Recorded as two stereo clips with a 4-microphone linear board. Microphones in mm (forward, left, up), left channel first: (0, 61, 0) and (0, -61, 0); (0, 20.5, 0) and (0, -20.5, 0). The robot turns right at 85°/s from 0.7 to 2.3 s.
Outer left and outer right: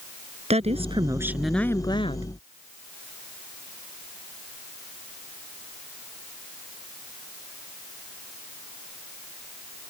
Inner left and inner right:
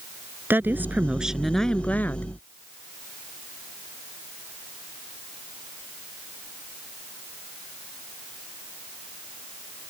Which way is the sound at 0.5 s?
65° right.